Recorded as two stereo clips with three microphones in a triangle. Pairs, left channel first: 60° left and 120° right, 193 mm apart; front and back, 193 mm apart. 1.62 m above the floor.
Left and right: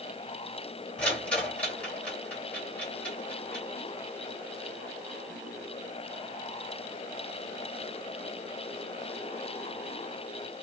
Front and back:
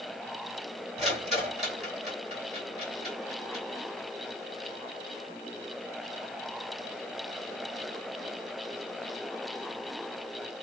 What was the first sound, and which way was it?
A rattle, 140° left.